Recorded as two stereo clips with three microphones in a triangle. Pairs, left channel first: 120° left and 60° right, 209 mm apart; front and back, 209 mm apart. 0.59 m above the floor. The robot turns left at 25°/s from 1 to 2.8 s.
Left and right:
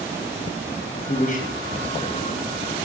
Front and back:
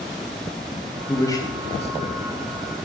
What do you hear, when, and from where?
1.1 s a man speaking: 80° left, 3.5 m; by 2.2 s 50° left, 3.5 m